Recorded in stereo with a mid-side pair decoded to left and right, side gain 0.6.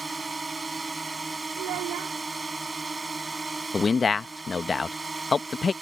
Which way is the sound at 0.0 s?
15° right.